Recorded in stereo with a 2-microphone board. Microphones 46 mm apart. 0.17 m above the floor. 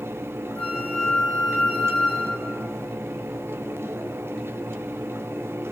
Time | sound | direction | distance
0.6 | a flute | 35° left (ahead or behind) | 3 m